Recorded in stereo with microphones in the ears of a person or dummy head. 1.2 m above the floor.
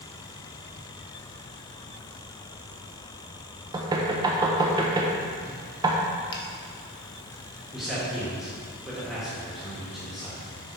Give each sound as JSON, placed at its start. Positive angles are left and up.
{"t": 3.7, "sound": "knocking", "side_deg": -20, "distance_m": 0.8}
{"t": 6.3, "sound": "a finger snap", "side_deg": 25, "distance_m": 1.2}
{"t": 7.7, "sound": "a man speaking", "side_deg": 0, "distance_m": 1.7}